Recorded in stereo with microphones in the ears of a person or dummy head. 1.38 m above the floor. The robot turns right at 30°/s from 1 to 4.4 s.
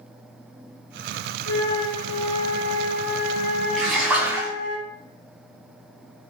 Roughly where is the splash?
Centre.